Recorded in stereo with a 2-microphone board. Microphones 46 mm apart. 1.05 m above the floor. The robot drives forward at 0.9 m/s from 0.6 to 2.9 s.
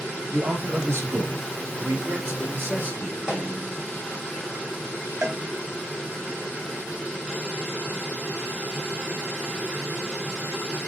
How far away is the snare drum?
About 1.7 m.